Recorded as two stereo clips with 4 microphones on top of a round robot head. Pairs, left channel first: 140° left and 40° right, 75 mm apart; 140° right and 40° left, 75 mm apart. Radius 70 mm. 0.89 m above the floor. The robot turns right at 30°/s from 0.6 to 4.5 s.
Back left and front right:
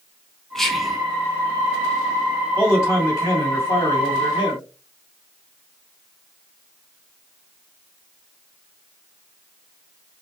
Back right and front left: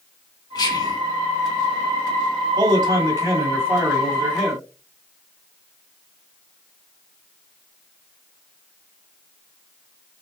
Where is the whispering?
135° right, 1.7 m; by 1.0 s 125° right, 1.7 m.